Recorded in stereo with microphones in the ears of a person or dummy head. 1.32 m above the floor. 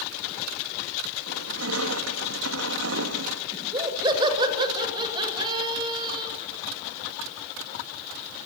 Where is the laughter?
15° right (ahead or behind), 7 m.